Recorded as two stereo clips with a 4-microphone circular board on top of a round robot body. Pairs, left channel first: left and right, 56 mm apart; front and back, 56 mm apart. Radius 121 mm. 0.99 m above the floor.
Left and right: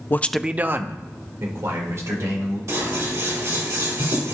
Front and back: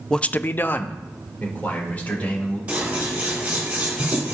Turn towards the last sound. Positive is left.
turn(degrees=-115)